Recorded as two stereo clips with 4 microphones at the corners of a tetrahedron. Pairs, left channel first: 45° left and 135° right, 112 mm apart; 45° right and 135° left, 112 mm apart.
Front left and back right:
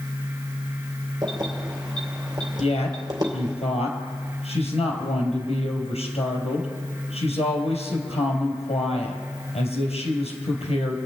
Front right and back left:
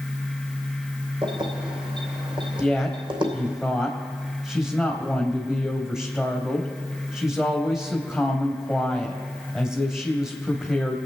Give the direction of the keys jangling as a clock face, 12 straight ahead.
6 o'clock.